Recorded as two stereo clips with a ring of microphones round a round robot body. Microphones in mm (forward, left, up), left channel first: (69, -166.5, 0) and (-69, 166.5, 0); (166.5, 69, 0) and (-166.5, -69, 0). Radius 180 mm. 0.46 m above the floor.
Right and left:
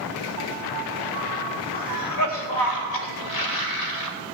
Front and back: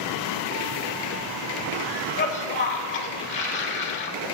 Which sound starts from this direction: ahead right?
A cough, at 1.7 s.